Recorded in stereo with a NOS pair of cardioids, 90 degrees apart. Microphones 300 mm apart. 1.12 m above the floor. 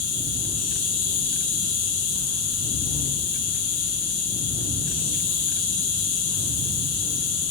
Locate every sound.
0.0 s an insect: 55° left, 1.0 m